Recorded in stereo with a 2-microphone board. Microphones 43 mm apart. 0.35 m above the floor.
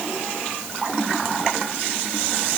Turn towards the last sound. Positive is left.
No sound to turn to.